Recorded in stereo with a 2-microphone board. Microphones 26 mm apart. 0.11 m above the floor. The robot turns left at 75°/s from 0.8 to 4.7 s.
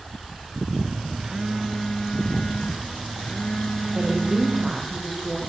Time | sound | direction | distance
1.2 | a phone buzzing | 140° right | 1.6 m
4.0 | a woman speaking | 130° right | 4 m